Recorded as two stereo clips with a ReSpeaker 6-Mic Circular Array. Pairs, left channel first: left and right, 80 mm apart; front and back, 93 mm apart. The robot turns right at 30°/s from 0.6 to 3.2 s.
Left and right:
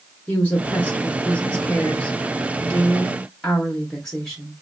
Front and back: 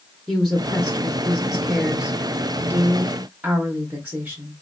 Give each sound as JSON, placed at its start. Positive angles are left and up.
{"t": 0.3, "sound": "a woman speaking", "azimuth_deg": 80, "distance_m": 0.7}